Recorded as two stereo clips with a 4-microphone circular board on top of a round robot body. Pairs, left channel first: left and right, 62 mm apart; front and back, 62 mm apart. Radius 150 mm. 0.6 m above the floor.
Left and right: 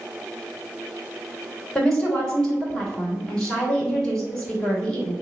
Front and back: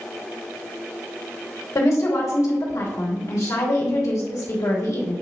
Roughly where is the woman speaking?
Ahead.